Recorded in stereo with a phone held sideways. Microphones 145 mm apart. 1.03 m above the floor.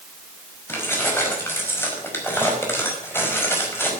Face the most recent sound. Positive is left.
turn(degrees=15)  # may be behind; listen again after turning